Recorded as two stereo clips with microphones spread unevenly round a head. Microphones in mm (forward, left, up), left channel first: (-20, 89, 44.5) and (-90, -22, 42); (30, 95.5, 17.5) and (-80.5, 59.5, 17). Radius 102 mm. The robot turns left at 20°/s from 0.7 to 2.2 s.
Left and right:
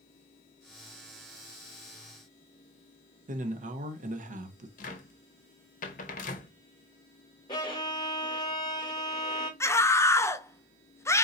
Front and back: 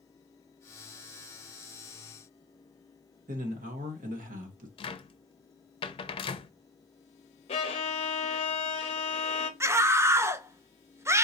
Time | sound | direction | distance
3.3 | a man speaking | 145° right | 1.0 m
4.8 | a cupboard door | 45° left | 0.6 m
7.5 | a violin | 5° right | 0.6 m
9.6 | a scream | 130° left | 0.8 m